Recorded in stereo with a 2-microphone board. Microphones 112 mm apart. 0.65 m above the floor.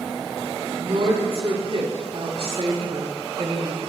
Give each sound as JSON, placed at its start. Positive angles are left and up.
{"t": 0.7, "sound": "a woman speaking", "side_deg": -65, "distance_m": 4.5}